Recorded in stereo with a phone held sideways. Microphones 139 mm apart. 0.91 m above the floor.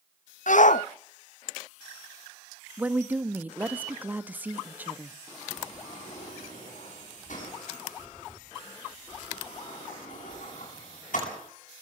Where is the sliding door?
65° left (ahead or behind), 9 m.